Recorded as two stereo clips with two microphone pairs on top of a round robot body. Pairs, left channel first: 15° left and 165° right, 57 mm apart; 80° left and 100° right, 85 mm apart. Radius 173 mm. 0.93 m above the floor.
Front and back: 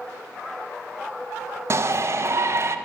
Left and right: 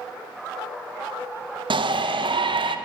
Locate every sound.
1.7 s a shout: 120° right, 0.7 m